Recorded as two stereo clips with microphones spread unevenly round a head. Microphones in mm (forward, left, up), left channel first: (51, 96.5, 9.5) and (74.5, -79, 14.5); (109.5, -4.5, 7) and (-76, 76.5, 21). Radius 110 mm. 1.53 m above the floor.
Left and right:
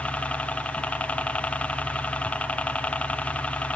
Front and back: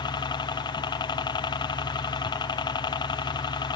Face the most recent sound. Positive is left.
turn(degrees=20)